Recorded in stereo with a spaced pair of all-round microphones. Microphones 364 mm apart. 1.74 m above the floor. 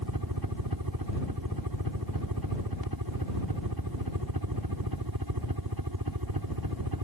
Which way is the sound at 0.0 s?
70° right (ahead or behind).